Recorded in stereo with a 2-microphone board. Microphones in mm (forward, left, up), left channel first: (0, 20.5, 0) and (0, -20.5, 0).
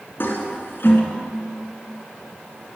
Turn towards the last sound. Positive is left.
turn(degrees=60)  # may be behind; listen again after turning